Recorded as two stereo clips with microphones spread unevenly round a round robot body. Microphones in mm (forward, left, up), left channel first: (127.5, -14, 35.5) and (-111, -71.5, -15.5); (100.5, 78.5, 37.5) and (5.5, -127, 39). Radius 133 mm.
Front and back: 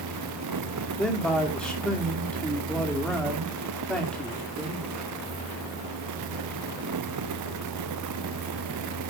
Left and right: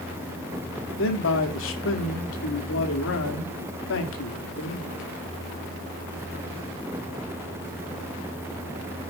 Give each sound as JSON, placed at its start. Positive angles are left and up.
{"t": 1.0, "sound": "a man speaking", "azimuth_deg": 105, "distance_m": 2.5}